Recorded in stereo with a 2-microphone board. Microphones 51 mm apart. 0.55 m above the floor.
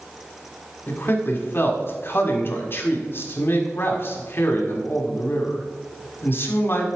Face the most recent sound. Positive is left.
turn(degrees=45)  # may be behind; listen again after turning